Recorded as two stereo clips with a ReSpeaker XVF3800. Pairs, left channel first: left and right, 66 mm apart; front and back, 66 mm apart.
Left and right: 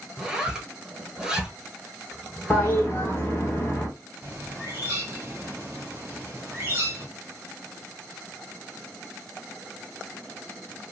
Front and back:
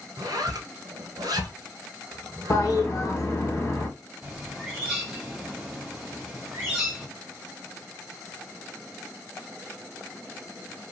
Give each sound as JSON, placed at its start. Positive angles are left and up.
{"t": 0.2, "sound": "a zipper", "azimuth_deg": -170, "distance_m": 0.9}
{"t": 2.5, "sound": "a toilet flushing", "azimuth_deg": 40, "distance_m": 1.1}
{"t": 4.2, "sound": "a bird", "azimuth_deg": -115, "distance_m": 1.8}